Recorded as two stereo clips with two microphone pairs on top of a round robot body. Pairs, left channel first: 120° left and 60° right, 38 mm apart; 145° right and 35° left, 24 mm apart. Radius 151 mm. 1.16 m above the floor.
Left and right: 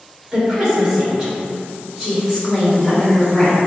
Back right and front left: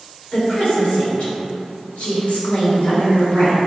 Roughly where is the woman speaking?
Behind right.